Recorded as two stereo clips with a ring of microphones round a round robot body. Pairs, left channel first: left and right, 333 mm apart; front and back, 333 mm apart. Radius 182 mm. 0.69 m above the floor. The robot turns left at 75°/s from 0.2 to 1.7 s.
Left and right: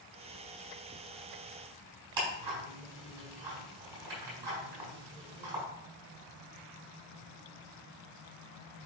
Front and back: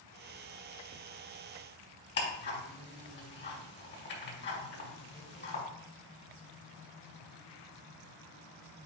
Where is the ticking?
60° right, 4 m.